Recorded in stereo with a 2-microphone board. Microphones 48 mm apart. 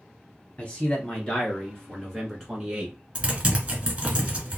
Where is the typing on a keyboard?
20° right (ahead or behind), 1.1 m.